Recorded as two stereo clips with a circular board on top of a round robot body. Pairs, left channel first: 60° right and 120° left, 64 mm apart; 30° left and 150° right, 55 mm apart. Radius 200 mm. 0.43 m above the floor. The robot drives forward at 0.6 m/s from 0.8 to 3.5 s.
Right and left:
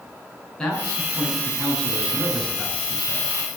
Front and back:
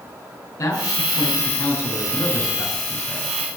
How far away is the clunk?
No clunk in this recording.